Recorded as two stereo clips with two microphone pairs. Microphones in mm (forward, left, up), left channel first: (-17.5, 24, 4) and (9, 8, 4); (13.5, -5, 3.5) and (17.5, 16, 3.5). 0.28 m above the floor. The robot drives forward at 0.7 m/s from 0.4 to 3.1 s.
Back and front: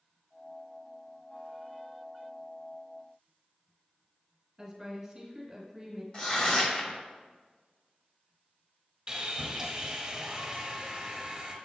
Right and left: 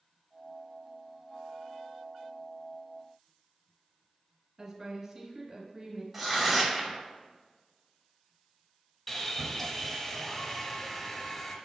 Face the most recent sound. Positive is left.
turn(degrees=-50)